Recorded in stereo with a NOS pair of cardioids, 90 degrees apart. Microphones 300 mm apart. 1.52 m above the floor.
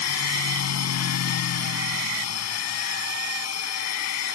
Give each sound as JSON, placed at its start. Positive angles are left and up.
{"t": 0.0, "sound": "a machine running", "azimuth_deg": 60}